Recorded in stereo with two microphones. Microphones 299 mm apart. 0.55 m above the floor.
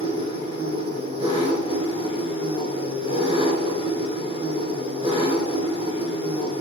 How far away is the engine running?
About 2.5 m.